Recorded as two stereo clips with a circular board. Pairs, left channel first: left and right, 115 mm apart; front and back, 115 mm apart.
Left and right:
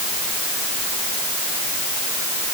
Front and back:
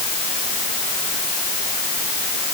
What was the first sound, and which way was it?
Only background noise.